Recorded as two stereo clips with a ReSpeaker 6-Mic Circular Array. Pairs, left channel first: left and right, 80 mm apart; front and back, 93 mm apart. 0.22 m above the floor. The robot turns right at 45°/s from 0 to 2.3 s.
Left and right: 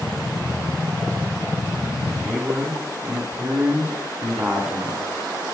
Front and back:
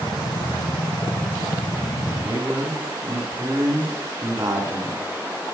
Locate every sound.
2.2 s a man speaking: 165° right, 1.7 m